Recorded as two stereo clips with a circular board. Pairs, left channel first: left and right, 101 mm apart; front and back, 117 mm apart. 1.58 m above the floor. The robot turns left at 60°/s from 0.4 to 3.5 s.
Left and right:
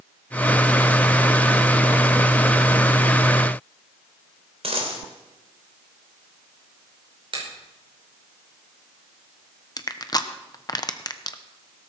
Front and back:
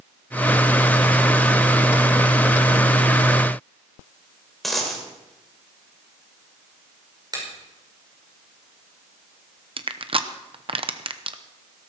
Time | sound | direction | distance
4.6 | a dropped coin | 90° right | 3 m
7.3 | a finger snap | 125° right | 5 m
9.8 | crushing | 140° left | 0.8 m